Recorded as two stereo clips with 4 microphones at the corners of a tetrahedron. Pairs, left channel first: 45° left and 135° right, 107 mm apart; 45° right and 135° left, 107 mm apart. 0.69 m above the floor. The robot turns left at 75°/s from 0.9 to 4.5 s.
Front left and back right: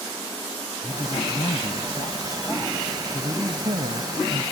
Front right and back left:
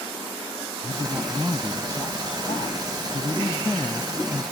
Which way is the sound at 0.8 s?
95° left.